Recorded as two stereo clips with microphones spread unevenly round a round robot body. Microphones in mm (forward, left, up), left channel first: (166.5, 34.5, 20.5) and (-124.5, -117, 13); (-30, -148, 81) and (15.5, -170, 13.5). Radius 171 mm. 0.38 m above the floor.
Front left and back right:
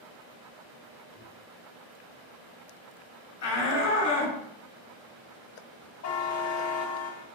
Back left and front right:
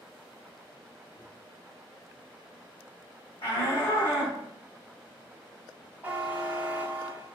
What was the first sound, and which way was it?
A microwave, 110° right.